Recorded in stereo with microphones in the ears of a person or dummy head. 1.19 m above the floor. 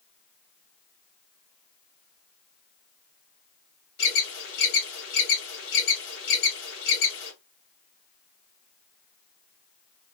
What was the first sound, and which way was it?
An alarm, 55° left (ahead or behind).